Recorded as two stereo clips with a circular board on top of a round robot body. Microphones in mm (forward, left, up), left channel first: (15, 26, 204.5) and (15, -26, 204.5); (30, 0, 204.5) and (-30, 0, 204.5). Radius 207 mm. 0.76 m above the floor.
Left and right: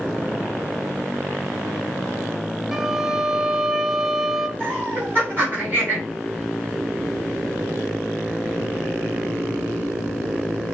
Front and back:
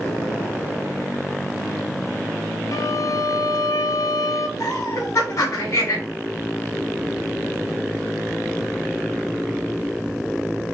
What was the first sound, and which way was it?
A violin, 5° right.